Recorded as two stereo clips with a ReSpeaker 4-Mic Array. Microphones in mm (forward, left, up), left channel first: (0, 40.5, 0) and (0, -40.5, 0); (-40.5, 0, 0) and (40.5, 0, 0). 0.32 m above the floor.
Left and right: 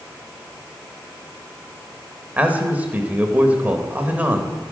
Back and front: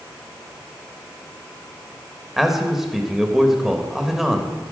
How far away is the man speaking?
About 1.1 m.